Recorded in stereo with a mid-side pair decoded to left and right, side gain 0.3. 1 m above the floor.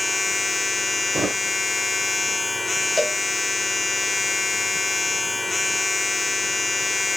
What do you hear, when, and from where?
0.0 s a machine running: 30° left, 0.9 m
1.1 s a thud: 40° right, 1.1 m
3.0 s a cowbell: 10° left, 0.8 m